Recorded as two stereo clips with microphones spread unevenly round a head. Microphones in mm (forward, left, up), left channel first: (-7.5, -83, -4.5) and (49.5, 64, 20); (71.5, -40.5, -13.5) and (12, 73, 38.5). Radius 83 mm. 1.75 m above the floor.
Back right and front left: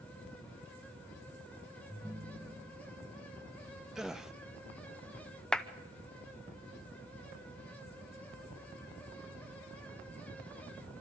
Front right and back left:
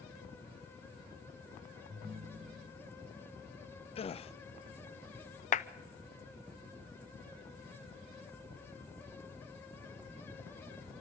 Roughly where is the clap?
Ahead.